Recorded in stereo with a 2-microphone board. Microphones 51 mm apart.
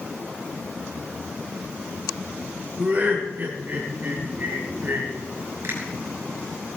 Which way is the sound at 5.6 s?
55° right (ahead or behind).